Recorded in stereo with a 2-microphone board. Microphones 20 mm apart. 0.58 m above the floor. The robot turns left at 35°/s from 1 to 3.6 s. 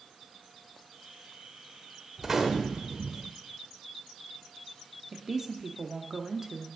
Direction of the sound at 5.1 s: 25° right (ahead or behind).